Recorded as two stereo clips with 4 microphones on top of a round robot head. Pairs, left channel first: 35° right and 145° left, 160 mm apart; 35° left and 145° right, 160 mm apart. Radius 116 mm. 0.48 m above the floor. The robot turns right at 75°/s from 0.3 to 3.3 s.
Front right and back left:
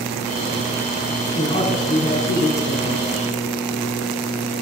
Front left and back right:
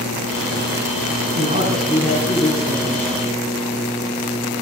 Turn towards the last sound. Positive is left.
turn(degrees=35)